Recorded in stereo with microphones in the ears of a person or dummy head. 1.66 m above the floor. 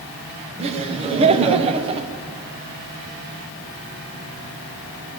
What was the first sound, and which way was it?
Laughter, 35° right (ahead or behind).